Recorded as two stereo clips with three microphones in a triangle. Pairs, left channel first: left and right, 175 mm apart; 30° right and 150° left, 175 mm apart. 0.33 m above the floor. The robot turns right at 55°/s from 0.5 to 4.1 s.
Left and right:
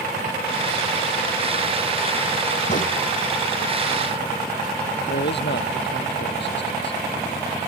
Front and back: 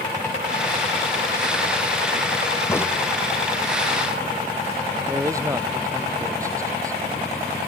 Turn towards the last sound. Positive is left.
turn(degrees=80)